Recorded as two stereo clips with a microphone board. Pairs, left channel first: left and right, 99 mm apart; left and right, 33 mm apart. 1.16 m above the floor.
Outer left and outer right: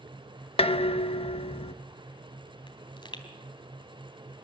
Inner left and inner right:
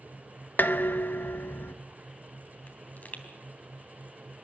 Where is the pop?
55° left (ahead or behind), 3 m.